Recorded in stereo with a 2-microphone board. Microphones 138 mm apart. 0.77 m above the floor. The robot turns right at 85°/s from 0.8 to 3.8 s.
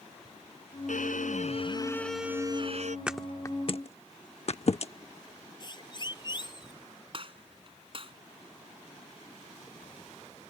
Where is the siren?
35° left (ahead or behind).